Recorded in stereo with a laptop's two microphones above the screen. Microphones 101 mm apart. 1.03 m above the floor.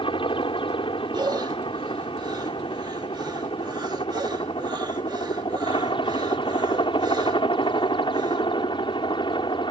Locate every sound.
0.0 s a helicopter: 65° left (ahead or behind); by 9.7 s 60° left (ahead or behind)
1.1 s breathing: 45° right (ahead or behind)